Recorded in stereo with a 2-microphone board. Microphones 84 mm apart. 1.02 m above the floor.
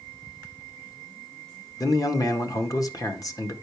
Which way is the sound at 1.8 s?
45° left (ahead or behind).